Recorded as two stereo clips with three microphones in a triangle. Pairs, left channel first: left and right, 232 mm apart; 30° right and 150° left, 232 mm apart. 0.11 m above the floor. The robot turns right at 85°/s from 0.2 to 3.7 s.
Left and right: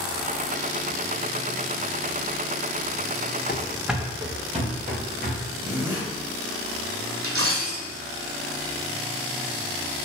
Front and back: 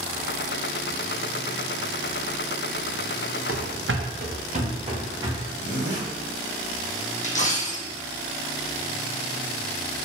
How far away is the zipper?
About 1.9 m.